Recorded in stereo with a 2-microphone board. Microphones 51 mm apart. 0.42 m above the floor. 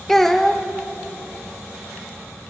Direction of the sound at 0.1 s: 5° left (ahead or behind).